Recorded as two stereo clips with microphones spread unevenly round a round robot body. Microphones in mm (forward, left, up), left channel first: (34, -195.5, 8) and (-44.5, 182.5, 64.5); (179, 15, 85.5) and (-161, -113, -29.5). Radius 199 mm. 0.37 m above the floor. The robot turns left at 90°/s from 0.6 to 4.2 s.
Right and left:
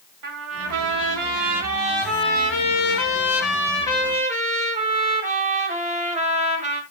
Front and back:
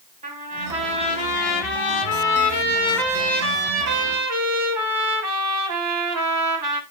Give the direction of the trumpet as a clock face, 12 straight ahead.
7 o'clock.